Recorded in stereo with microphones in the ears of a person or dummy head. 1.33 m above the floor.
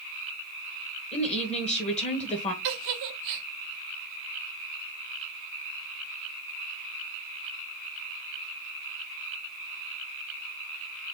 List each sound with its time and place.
1.1 s a woman speaking: 35° left (ahead or behind), 1.6 m
2.6 s a giggle: 60° right (ahead or behind), 1.3 m